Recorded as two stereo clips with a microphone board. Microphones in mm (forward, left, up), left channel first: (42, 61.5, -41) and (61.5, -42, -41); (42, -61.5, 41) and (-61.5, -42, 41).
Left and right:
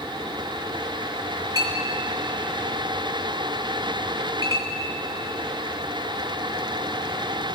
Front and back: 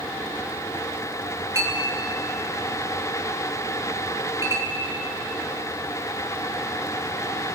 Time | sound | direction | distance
1.6 | a clink | 135° right | 2.5 m